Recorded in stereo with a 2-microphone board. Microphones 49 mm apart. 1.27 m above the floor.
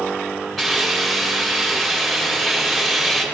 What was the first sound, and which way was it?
A hiss, 5° left (ahead or behind).